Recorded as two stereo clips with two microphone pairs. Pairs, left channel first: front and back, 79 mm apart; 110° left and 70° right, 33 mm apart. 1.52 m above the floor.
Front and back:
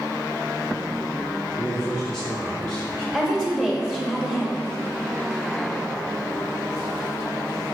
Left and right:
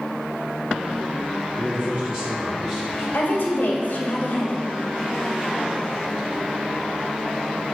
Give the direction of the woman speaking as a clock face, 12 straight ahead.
9 o'clock.